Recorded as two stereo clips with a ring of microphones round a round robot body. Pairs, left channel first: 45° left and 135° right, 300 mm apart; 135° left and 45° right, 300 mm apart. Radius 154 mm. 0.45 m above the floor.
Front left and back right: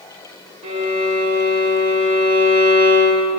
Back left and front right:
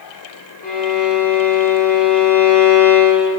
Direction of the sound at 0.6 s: 170° left.